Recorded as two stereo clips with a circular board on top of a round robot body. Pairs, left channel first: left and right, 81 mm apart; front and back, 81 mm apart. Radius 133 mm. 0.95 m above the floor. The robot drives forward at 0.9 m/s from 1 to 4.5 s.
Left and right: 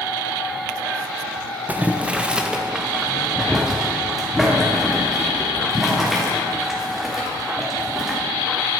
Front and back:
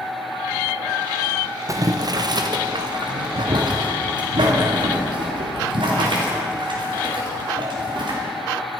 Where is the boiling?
155° right, 0.9 m; by 8.2 s 175° right, 3 m.